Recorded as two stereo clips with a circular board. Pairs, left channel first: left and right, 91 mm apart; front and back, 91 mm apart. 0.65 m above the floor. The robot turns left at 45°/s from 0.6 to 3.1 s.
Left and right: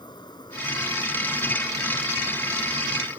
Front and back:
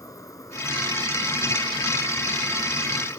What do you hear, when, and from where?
0.0 s an insect: 50° left; by 3.2 s 60° right